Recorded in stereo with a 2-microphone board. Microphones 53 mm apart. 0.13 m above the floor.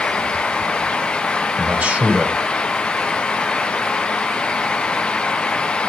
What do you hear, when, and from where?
1.6 s a man speaking: 30° right (ahead or behind), 1.9 m